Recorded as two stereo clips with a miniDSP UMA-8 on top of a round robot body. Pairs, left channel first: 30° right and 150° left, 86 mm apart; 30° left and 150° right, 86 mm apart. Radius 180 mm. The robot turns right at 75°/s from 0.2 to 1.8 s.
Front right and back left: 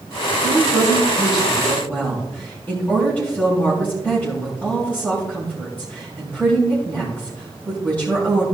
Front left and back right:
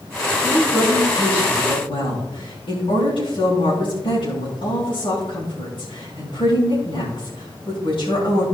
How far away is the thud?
No thud in this recording.